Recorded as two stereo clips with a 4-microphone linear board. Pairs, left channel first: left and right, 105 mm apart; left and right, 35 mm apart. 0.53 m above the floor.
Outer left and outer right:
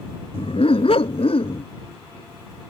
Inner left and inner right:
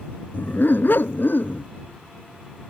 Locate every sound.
0.3 s a dog barking: 75° left (ahead or behind)